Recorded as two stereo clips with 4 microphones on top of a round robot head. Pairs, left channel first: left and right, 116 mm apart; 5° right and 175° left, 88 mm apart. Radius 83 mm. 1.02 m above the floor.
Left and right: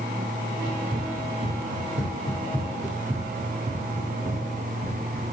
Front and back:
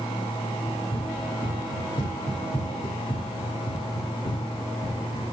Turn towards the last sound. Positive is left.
turn(degrees=-40)